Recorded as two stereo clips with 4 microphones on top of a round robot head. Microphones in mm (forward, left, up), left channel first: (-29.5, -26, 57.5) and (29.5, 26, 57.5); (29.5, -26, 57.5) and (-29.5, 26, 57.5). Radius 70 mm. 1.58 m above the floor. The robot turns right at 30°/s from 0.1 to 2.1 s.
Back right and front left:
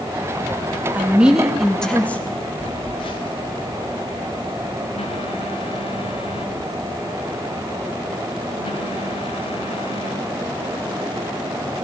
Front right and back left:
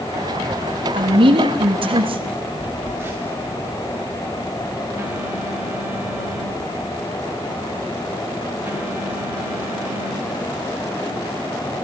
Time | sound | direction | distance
0.9 | a woman speaking | 110° left | 3 m
2.6 | a phone buzzing | 160° right | 1.7 m